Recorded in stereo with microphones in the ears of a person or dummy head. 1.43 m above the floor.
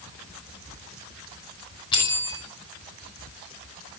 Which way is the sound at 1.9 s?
25° left (ahead or behind).